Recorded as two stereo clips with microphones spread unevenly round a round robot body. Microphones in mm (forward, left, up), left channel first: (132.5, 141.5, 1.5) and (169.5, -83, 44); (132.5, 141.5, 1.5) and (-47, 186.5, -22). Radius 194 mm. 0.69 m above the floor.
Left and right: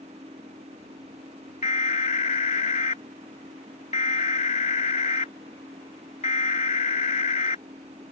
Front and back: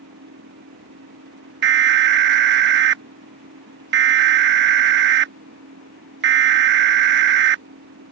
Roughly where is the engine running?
Behind right.